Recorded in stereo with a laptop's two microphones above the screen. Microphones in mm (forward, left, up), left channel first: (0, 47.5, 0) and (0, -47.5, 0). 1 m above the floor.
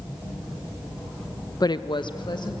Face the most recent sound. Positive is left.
turn(degrees=50)  # may be behind; listen again after turning